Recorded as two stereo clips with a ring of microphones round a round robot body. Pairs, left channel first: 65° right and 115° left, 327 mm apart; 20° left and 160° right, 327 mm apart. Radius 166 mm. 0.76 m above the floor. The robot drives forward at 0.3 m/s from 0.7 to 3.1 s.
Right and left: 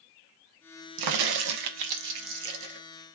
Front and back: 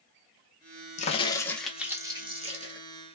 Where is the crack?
90° left, 0.6 m; by 2.8 s 135° left, 0.8 m.